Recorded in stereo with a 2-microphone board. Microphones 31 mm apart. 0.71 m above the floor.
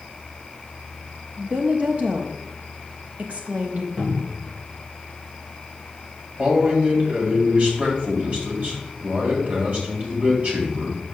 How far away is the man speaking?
About 3.5 m.